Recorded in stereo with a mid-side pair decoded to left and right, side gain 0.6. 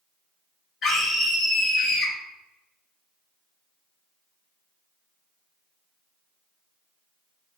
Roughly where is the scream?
Ahead left.